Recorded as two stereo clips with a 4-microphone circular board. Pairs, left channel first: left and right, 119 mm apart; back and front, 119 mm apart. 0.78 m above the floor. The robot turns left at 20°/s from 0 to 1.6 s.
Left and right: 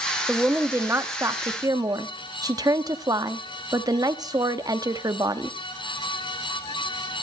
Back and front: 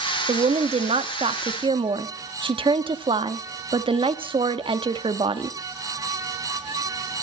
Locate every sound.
0.3 s a woman speaking: 10° right, 1.0 m; by 5.6 s 35° right, 1.0 m